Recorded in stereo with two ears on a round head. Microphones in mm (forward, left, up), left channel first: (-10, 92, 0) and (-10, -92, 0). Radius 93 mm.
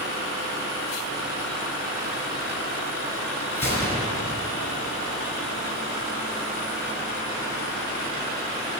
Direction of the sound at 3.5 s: 10° left (ahead or behind).